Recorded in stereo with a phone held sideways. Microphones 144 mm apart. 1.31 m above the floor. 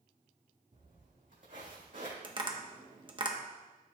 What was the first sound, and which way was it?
Footsteps, 60° right (ahead or behind).